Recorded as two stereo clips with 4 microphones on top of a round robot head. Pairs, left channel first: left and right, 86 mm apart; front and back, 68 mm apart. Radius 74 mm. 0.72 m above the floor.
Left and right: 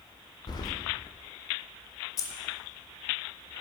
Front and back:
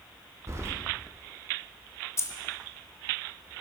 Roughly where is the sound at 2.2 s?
Ahead left.